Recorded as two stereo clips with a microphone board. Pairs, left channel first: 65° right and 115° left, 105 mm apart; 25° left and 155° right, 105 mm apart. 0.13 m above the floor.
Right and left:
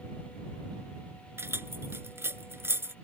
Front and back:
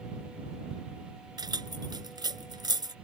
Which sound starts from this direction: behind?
Keys jangling, at 1.4 s.